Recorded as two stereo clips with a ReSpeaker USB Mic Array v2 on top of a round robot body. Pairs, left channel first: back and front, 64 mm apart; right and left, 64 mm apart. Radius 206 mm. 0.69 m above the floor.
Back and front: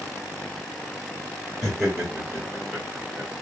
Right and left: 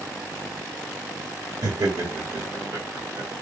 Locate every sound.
1.6 s laughter: 95° left, 2 m; by 3.3 s 80° left, 1.5 m